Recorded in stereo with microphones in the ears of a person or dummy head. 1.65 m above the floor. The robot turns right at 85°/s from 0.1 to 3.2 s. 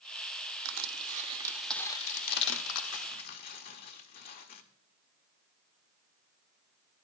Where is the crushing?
75° right (ahead or behind), 0.8 m; by 4.6 s 50° left (ahead or behind), 0.8 m.